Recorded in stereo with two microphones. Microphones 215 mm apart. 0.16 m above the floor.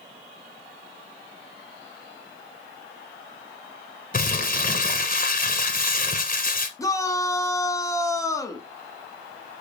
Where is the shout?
15° left (ahead or behind), 1.3 m.